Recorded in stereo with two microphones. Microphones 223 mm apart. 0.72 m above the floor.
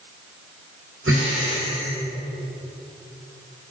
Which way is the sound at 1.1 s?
65° right (ahead or behind).